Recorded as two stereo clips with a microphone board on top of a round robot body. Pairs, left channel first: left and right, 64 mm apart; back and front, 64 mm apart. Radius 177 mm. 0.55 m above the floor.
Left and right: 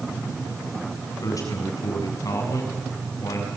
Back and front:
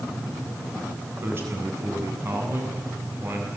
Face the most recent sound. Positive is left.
turn(degrees=55)